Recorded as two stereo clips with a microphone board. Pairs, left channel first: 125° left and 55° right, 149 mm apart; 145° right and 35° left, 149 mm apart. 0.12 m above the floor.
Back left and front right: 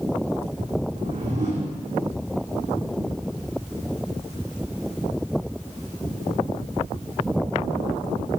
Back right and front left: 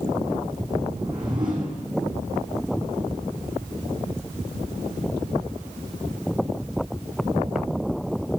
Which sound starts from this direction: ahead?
A whoosh, at 0.9 s.